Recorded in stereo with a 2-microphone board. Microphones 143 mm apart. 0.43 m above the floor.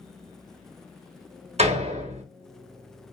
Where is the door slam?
50° right (ahead or behind), 1.0 m.